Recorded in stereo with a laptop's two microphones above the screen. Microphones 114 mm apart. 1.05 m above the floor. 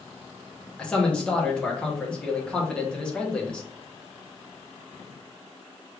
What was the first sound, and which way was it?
A man speaking, 5° left (ahead or behind).